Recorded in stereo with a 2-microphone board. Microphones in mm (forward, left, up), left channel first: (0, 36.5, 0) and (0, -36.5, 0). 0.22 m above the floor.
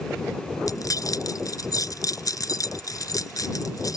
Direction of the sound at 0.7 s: 55° left (ahead or behind).